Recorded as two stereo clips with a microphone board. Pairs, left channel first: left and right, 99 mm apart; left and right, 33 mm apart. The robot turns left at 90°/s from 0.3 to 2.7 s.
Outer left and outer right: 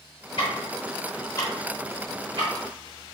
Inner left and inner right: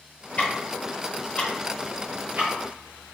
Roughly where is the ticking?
Left.